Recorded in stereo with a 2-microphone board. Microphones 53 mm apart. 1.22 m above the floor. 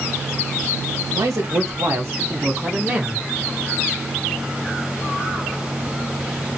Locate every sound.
1.1 s a man speaking: 75° right (ahead or behind), 1.2 m; by 3.3 s 20° right (ahead or behind), 1.1 m